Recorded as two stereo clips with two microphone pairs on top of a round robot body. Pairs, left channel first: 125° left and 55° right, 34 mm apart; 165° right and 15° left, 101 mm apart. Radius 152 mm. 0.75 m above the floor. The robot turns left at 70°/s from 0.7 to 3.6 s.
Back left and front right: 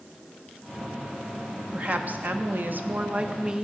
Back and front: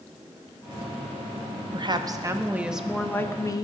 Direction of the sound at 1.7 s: Straight ahead.